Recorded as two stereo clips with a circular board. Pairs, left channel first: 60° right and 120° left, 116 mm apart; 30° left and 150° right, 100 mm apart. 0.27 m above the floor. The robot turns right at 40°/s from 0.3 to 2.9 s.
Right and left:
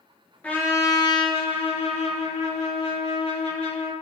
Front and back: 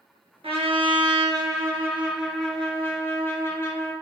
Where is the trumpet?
135° right, 1.1 m; by 3.9 s 40° right, 1.1 m.